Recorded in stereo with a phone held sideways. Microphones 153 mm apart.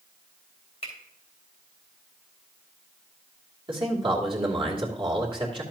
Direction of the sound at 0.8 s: 40° left (ahead or behind).